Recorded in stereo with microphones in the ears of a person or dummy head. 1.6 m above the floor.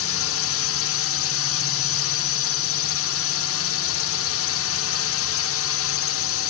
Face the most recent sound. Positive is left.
turn(degrees=65)  # may be behind; listen again after turning